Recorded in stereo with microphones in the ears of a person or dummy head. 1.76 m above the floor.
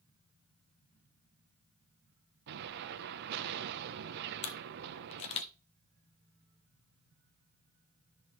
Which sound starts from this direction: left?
A camera shutter, at 4.4 s.